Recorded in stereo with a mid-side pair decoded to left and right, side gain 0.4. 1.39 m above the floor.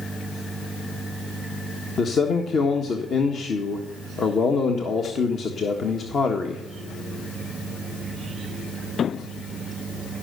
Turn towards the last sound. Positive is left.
turn(degrees=55)